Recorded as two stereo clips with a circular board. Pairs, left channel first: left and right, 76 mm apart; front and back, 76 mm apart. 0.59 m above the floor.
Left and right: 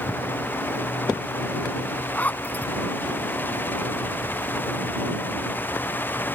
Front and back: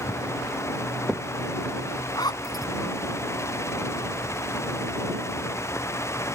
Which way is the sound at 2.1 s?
20° left.